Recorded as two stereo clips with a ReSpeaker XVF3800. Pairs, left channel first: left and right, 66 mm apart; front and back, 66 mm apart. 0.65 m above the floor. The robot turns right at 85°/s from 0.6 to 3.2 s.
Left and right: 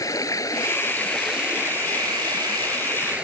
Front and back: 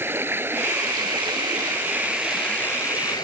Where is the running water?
125° left; by 3.2 s 15° right.